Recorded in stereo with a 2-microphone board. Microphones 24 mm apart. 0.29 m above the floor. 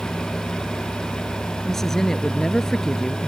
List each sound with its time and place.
1.6 s a woman speaking: 20° left (ahead or behind)